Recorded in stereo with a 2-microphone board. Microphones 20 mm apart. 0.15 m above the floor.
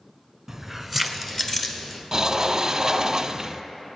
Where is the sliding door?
30° right (ahead or behind), 0.6 m.